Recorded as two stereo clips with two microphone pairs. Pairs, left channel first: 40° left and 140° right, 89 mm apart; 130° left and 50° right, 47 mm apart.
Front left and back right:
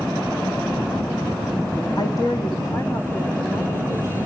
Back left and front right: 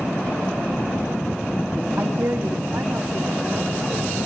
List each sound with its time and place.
2.0 s a woman speaking: 10° right, 1.9 m; by 4.3 s 15° right, 5 m